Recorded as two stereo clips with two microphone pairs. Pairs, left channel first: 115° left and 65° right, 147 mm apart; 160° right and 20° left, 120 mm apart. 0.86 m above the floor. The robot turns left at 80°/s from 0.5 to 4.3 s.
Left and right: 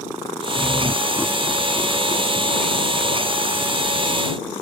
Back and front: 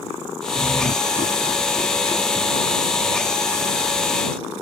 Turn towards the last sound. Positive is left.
turn(degrees=-40)